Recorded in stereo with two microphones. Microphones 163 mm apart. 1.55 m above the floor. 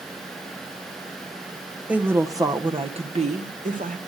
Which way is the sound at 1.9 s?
5° right (ahead or behind).